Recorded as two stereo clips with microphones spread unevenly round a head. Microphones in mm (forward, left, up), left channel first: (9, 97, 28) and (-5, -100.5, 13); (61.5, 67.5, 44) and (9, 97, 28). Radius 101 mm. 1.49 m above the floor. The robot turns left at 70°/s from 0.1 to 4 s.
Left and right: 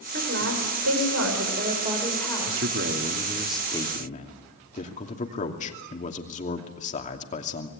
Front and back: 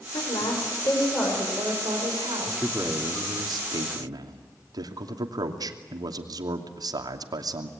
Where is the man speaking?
110° right, 2.5 m; by 7.7 s 140° left, 2.5 m.